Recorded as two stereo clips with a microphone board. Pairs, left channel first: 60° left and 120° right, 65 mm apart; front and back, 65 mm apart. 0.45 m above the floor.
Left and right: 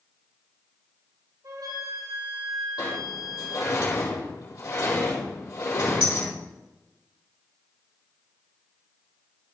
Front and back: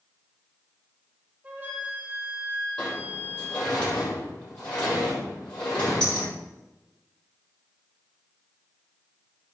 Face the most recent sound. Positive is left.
turn(degrees=75)